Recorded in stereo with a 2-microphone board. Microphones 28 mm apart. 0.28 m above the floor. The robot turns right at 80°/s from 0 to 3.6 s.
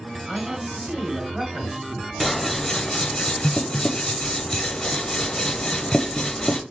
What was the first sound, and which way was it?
A man speaking, 145° right.